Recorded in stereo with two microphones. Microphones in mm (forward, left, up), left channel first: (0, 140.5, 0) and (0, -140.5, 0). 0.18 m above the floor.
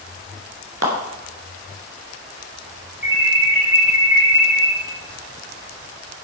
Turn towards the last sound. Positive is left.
turn(degrees=-45)  # may be behind; listen again after turning